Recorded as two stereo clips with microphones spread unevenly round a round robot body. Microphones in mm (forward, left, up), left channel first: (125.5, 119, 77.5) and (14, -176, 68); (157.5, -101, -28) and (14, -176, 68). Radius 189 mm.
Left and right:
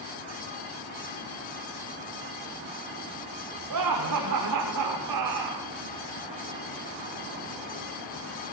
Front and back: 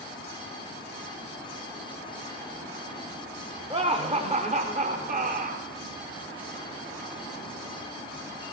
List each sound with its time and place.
3.7 s laughter: 85° right, 3.5 m; by 5.7 s 110° right, 3.5 m